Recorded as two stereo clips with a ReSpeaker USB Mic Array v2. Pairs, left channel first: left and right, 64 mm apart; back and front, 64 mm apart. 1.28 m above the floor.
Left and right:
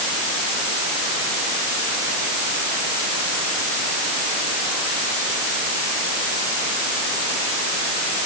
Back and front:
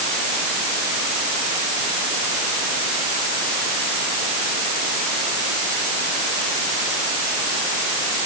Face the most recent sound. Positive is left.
No sound to turn to.